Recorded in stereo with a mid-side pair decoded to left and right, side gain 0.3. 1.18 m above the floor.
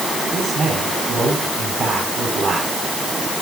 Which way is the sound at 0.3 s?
70° right.